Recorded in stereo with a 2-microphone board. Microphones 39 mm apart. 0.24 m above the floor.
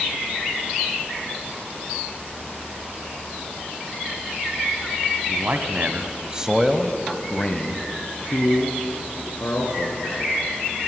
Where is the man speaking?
50° right (ahead or behind), 1.6 m; by 10.3 s 65° left (ahead or behind), 3 m.